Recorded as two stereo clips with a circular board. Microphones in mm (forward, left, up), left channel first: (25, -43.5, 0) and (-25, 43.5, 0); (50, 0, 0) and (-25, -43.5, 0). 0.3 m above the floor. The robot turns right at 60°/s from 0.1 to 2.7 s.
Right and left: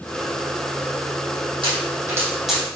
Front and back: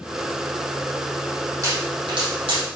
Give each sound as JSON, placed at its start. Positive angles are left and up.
{"t": 1.6, "sound": "a pop", "azimuth_deg": 155, "distance_m": 6.0}